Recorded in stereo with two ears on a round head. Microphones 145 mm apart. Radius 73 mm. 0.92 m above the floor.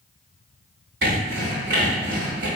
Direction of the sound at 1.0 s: 75° right (ahead or behind).